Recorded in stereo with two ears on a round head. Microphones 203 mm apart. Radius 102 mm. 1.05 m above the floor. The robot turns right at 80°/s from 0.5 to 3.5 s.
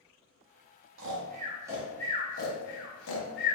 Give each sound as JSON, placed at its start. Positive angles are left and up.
{"t": 1.0, "sound": "snoring", "side_deg": -60, "distance_m": 0.7}